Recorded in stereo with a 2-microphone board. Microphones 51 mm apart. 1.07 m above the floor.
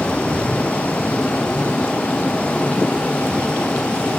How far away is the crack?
I don't hear a crack.